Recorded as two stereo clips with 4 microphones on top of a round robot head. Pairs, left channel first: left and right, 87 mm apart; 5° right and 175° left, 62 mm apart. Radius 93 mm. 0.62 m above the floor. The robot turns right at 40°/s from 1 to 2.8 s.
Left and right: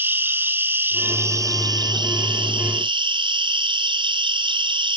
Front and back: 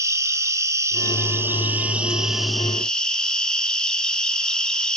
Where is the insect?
155° right, 1.3 m; by 5.0 s 85° right, 1.3 m.